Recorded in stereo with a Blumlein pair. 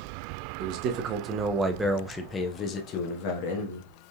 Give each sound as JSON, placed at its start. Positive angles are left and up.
{"t": 0.6, "sound": "a man speaking", "azimuth_deg": -45, "distance_m": 1.0}